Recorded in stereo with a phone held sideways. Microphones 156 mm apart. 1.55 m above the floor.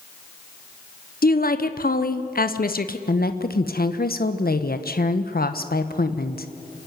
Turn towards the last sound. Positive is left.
turn(degrees=75)  # may be behind; listen again after turning